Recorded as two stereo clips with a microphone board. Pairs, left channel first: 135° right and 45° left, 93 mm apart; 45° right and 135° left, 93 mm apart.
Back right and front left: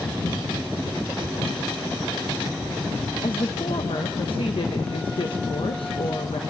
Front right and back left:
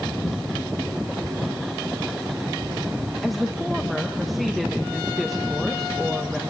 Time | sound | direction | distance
3.2 | a woman speaking | 135° right | 1.0 m